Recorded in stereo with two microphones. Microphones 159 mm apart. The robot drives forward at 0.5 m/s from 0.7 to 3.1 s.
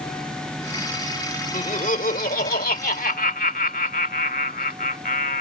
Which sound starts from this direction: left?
Laughter, at 1.5 s.